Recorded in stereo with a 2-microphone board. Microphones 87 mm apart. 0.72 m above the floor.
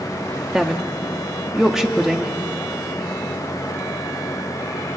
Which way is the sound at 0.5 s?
5° right (ahead or behind).